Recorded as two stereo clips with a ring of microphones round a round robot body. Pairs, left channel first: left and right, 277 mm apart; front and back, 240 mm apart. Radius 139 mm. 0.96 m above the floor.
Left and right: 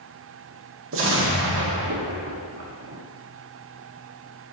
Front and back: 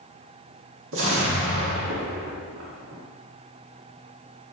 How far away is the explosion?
About 1.8 m.